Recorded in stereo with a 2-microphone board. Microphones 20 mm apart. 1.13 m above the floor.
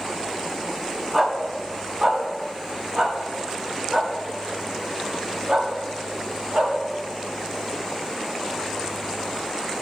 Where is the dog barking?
20° right (ahead or behind), 5 m; by 6.7 s 75° right (ahead or behind), 8 m.